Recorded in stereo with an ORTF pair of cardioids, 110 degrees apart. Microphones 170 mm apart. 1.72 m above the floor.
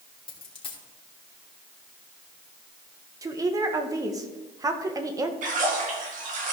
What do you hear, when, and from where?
0.3 s a dropped coin: 30° left, 3 m
3.2 s a woman speaking: 20° right, 1.5 m
5.4 s a splash: 50° right, 2.5 m